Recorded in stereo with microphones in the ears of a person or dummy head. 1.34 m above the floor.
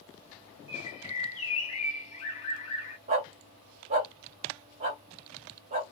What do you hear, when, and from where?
0.7 s a bird: 40° left (ahead or behind), 2 m
3.1 s a dog barking: 30° right (ahead or behind), 0.8 m